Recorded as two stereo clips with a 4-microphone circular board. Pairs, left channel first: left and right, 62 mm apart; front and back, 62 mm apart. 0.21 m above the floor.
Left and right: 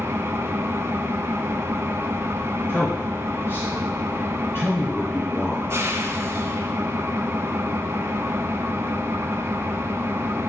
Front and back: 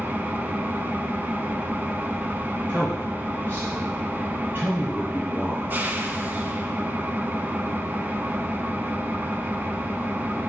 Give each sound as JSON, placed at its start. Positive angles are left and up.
{"t": 0.0, "sound": "an engine running", "azimuth_deg": -125, "distance_m": 0.7}
{"t": 2.7, "sound": "a man speaking", "azimuth_deg": 135, "distance_m": 3.0}